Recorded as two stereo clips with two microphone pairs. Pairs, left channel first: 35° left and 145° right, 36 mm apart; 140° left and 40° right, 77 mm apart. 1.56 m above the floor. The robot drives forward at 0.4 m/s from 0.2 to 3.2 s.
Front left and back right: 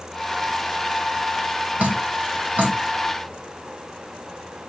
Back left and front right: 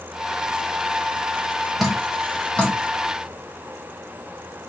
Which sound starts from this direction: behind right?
Dripping, at 1.8 s.